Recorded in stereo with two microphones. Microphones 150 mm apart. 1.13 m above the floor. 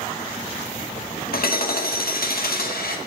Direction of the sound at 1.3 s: 85° left.